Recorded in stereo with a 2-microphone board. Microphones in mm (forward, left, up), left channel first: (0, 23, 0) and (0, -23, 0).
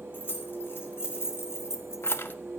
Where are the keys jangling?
50° left (ahead or behind), 2.5 m; by 2.4 s 45° left (ahead or behind), 0.7 m.